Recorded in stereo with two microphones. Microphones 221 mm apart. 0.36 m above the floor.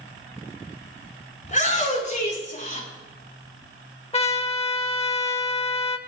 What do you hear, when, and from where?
1.4 s a shout: 35° left (ahead or behind), 4.5 m
4.1 s a trumpet: 25° left (ahead or behind), 0.8 m